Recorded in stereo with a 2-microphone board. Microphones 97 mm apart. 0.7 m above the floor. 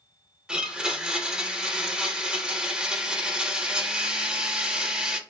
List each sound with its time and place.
0.5 s a blender: 10° right (ahead or behind), 0.6 m